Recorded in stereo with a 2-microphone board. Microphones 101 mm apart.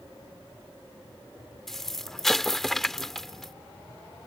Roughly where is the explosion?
Centre.